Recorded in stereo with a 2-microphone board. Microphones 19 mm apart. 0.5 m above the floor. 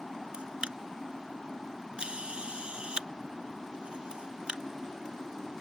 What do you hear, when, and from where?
0.3 s a camera shutter: 75° right (ahead or behind)